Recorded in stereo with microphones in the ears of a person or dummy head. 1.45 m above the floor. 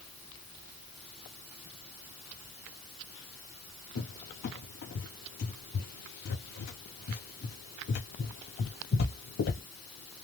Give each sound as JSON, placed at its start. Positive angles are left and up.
{"t": 4.0, "sound": "a cupboard door", "side_deg": 50, "distance_m": 0.8}